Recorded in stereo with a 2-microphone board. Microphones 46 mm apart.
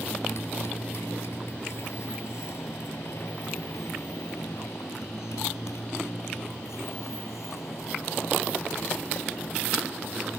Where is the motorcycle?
65° left (ahead or behind); by 10.4 s 90° left.